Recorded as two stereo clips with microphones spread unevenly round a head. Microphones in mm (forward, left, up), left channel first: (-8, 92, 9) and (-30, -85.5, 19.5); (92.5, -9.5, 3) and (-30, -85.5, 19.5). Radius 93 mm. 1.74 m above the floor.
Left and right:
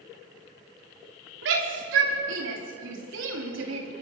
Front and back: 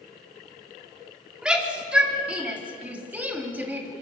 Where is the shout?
65° right, 5.5 m; by 3.9 s 75° right, 4 m.